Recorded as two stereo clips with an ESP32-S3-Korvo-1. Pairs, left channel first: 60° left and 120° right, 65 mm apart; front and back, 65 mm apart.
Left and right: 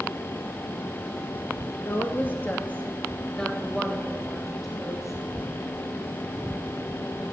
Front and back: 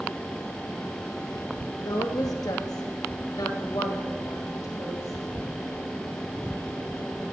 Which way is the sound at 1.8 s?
15° left.